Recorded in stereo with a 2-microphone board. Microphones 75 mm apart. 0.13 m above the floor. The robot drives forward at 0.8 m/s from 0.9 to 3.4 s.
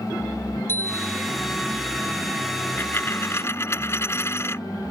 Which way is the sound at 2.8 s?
30° left (ahead or behind).